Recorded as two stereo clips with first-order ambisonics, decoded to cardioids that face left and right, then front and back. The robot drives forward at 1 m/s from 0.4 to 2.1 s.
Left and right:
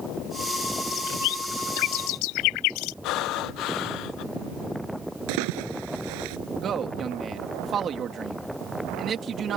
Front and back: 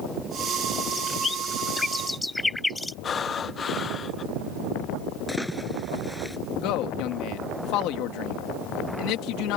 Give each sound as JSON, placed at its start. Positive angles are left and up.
{"t": 0.9, "sound": "a bird", "azimuth_deg": 65}
{"t": 3.0, "sound": "breathing", "azimuth_deg": 65}
{"t": 5.3, "sound": "a splash", "azimuth_deg": -90}
{"t": 6.6, "sound": "a man speaking", "azimuth_deg": -30}